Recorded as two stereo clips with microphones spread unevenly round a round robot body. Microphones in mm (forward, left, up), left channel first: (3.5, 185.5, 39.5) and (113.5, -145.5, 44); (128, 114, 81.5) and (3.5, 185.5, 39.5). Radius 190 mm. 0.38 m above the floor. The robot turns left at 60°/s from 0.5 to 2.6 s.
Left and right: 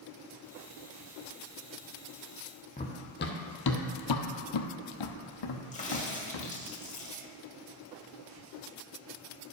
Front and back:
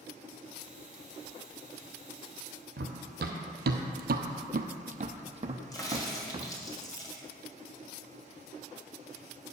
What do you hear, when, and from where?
2.8 s running footsteps: 175° right, 0.9 m; by 6.5 s 80° left, 1.5 m
5.7 s a crack: 45° left, 2.5 m